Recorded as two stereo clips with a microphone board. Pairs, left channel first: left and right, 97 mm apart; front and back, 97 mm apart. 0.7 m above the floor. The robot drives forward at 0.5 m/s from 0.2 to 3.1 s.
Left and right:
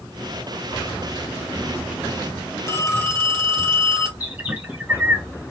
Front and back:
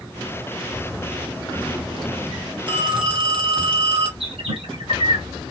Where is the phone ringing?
145° left, 1.5 m; by 4.1 s 150° left, 1.7 m.